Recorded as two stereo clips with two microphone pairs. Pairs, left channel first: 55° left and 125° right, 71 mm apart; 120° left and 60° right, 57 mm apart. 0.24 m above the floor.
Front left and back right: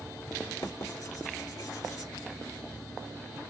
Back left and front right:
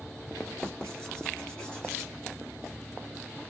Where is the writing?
50° left, 1.3 m.